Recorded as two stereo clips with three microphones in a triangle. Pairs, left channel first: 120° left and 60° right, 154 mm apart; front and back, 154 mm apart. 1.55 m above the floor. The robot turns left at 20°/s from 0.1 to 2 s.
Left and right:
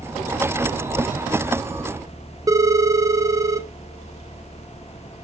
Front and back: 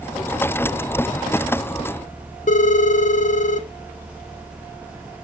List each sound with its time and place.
2.5 s a phone ringing: 5° left, 0.7 m